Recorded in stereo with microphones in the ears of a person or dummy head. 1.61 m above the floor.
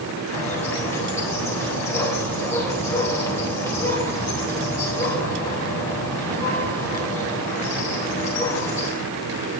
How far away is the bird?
About 4 m.